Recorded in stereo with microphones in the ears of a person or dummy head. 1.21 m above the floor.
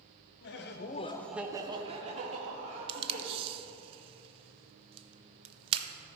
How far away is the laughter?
About 0.9 m.